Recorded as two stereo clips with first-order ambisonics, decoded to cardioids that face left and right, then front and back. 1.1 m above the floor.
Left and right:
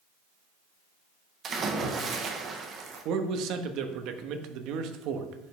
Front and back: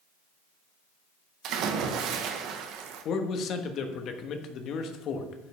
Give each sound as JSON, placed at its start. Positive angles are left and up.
{"t": 1.4, "sound": "a splash", "azimuth_deg": -150, "distance_m": 1.0}
{"t": 3.0, "sound": "a man speaking", "azimuth_deg": -50, "distance_m": 1.1}